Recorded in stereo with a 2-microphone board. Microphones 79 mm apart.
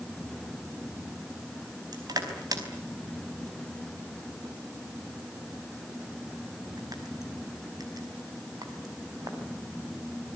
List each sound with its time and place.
1.9 s crushing: 55° right (ahead or behind), 4.5 m